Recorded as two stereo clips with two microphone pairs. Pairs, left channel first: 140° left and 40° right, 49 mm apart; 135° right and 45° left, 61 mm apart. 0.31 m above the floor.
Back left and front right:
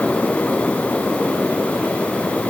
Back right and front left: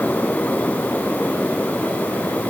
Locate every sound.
Only background noise.